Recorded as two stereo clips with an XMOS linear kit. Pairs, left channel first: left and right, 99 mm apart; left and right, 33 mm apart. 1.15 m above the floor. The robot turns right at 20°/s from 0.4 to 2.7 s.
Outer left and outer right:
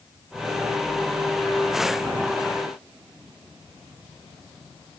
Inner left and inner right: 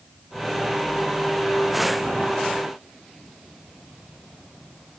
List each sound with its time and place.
Only background noise.